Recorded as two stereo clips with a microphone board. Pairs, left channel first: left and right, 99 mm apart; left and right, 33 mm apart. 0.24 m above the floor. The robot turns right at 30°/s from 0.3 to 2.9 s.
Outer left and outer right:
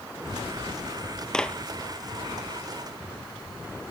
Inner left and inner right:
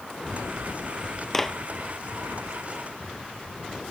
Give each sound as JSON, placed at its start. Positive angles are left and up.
{"t": 1.3, "sound": "a clap", "side_deg": 5}